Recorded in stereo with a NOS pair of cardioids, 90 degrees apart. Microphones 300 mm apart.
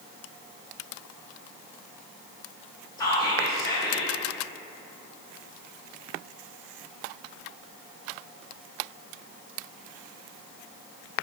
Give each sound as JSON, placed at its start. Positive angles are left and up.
{"t": 3.0, "sound": "whispering", "azimuth_deg": 10, "distance_m": 0.5}